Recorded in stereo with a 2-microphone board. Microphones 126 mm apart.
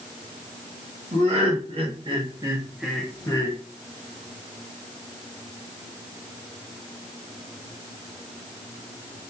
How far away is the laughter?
About 1.2 m.